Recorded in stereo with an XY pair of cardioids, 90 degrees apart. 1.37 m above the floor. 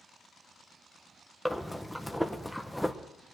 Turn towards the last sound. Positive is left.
turn(degrees=0)